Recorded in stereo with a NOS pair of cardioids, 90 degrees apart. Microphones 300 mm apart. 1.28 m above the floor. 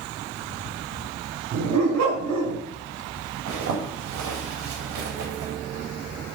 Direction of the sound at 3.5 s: 65° right.